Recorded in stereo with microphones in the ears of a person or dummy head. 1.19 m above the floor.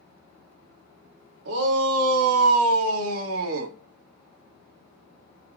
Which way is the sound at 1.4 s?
70° right (ahead or behind).